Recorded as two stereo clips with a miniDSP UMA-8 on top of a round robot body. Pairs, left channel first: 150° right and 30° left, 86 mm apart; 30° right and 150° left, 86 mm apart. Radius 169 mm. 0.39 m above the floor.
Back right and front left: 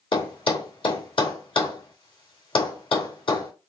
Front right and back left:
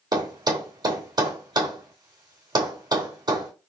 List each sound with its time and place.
0.1 s a thud: 170° right, 3 m